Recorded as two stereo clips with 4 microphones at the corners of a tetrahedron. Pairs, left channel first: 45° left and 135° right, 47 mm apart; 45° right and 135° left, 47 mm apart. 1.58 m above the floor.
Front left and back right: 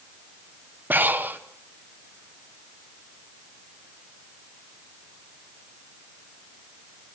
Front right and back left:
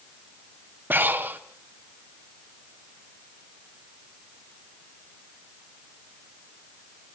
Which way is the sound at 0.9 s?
Straight behind.